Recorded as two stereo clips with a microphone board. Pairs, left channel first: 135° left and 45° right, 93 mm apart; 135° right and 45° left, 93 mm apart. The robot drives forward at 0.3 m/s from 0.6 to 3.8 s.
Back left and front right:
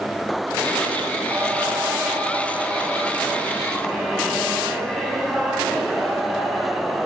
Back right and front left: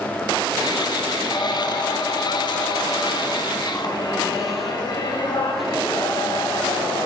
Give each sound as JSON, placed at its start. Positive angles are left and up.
{"t": 1.3, "sound": "singing", "azimuth_deg": -105, "distance_m": 1.2}